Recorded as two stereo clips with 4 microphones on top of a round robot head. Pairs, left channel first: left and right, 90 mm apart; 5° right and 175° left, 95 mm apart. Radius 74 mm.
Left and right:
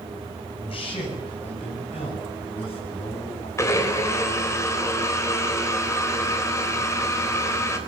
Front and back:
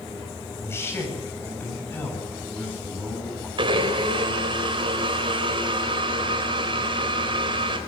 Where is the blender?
145° left, 4 m.